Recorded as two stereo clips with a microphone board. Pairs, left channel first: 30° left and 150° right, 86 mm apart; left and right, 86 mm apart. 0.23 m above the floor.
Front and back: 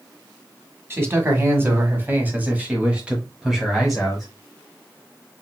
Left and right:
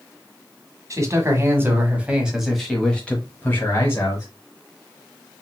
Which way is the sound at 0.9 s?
105° right.